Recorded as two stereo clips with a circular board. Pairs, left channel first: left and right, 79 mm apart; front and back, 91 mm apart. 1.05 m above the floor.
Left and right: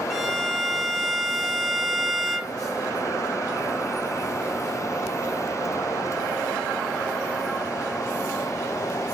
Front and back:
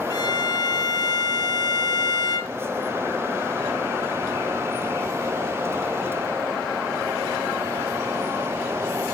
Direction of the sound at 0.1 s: Straight ahead.